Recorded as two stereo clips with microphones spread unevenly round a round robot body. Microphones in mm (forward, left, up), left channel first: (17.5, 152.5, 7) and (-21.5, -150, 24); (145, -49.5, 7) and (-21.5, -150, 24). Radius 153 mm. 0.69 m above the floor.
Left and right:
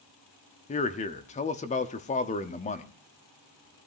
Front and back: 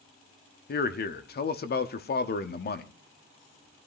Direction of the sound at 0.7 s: 20° left.